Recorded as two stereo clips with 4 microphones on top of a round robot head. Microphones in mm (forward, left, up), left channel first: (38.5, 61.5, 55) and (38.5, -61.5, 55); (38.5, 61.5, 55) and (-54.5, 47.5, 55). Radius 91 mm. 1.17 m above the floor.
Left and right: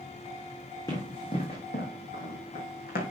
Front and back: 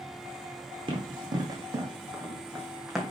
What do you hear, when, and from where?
0.9 s running footsteps: 160° left, 2.5 m; by 3.1 s 95° left, 2.5 m